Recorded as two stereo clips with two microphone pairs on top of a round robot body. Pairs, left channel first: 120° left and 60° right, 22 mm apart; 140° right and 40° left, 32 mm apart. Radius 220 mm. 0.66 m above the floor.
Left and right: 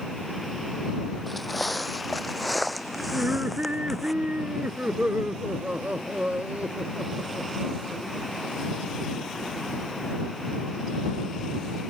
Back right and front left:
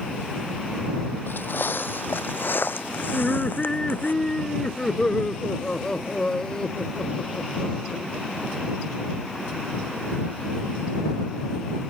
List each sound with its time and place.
1.3 s footsteps: 155° right; by 4.1 s 150° right
3.1 s laughter: 70° right